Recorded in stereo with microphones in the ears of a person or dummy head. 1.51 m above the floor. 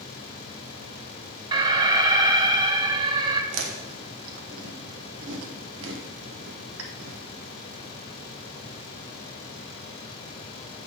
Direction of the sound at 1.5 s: 25° right (ahead or behind).